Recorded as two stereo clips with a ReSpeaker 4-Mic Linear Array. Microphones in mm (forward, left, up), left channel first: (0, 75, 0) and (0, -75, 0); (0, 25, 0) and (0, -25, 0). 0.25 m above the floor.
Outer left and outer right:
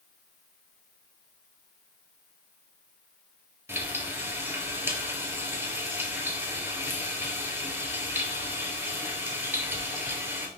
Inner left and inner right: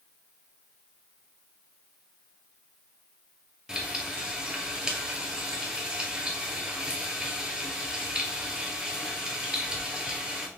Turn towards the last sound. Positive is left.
turn(degrees=-15)  # may be behind; listen again after turning